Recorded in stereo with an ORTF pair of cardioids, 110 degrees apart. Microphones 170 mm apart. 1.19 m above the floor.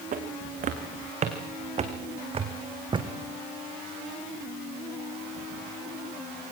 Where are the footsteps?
55° right, 4 m; by 3.1 s 30° right, 2.5 m.